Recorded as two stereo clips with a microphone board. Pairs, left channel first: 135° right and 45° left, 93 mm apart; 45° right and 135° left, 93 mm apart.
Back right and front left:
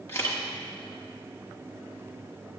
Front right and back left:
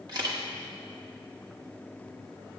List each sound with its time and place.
0.1 s a camera shutter: 165° left, 1.7 m